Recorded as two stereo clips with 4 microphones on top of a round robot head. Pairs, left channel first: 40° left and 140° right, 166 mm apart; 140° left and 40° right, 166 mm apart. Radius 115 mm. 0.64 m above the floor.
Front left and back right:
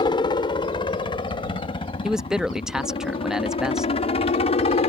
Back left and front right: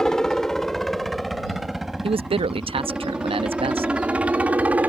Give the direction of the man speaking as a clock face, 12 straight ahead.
2 o'clock.